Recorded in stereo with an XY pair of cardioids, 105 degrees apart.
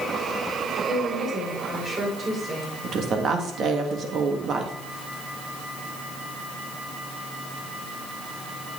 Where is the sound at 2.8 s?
60° right, 1.8 m.